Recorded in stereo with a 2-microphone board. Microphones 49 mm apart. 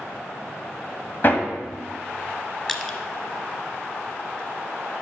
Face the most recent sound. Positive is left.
turn(degrees=10)  # may be behind; listen again after turning